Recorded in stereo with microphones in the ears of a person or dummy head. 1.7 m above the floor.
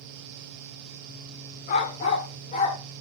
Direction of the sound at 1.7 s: 40° left (ahead or behind).